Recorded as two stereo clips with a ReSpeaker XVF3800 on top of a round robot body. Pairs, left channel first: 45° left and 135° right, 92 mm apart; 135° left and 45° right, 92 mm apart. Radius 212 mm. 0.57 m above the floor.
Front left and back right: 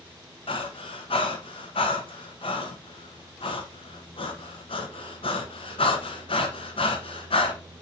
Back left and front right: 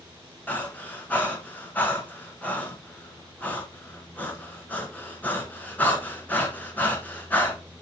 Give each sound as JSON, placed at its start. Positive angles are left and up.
{"t": 0.5, "sound": "breathing", "azimuth_deg": 65, "distance_m": 1.5}